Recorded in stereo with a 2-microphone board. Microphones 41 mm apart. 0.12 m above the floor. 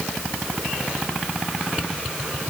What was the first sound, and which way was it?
Only background noise.